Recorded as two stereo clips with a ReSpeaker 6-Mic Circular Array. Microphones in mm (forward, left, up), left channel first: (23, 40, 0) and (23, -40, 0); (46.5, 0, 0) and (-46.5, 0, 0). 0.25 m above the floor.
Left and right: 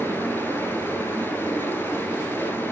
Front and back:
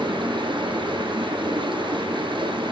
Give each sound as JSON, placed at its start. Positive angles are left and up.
{"t": 0.0, "sound": "running water", "azimuth_deg": 150, "distance_m": 1.7}